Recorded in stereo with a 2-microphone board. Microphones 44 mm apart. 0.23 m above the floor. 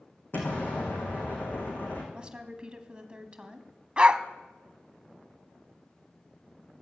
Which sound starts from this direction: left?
An explosion, at 0.3 s.